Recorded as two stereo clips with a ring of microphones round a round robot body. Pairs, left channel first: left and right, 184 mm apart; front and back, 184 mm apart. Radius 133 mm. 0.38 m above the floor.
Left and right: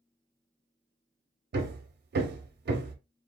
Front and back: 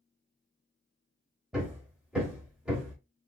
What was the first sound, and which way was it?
Hammering, 95° right.